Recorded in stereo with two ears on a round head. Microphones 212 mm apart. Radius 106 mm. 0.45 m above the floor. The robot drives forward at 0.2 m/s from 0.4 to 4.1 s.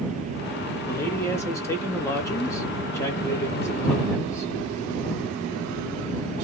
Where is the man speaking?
10° left (ahead or behind), 0.8 m.